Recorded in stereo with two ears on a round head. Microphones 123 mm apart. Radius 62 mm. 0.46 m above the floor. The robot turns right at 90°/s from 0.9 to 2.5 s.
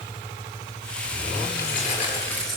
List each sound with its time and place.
1.6 s keys jangling: 95° left, 7 m; by 2.6 s straight behind, 7 m